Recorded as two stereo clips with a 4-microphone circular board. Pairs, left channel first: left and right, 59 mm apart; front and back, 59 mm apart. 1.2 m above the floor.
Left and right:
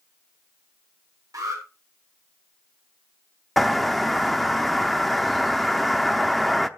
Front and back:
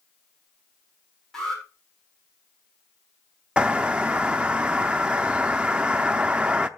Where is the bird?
Straight behind, 0.7 m.